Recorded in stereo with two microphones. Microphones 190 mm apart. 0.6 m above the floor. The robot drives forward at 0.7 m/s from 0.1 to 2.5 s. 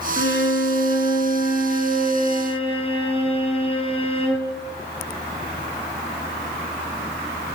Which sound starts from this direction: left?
A violin, at 0.2 s.